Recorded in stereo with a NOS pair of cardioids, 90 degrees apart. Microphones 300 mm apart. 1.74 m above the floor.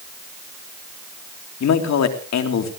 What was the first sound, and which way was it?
A man speaking, 60° left.